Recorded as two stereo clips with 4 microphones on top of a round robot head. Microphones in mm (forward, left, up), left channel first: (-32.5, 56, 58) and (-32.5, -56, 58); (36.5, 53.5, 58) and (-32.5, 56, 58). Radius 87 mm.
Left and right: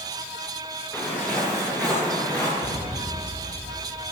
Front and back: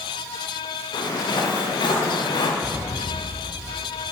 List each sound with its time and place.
0.9 s footsteps: 10° left, 5 m
2.6 s an explosion: 95° left, 4.5 m